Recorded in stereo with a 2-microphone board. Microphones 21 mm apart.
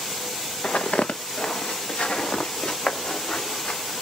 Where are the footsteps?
75° left (ahead or behind), 0.9 m; by 3.8 s 55° left (ahead or behind), 2.5 m.